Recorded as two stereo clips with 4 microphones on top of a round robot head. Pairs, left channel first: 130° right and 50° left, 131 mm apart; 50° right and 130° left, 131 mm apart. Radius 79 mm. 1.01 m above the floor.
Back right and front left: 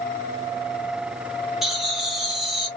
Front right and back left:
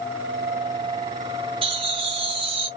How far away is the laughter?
About 1.0 m.